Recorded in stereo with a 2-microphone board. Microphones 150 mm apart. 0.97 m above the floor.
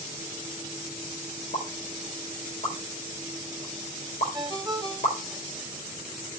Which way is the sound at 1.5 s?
60° left (ahead or behind).